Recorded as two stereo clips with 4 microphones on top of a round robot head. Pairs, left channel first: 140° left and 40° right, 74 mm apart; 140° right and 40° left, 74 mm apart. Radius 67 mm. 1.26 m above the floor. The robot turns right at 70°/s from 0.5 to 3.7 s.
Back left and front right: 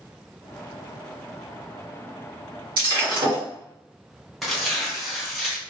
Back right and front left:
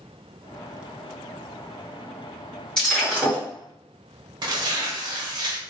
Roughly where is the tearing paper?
Ahead left.